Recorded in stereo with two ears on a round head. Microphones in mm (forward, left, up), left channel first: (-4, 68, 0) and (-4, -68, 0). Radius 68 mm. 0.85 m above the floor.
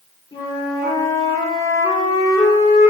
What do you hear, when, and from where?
0.3 s a flute: 25° left (ahead or behind), 2.5 m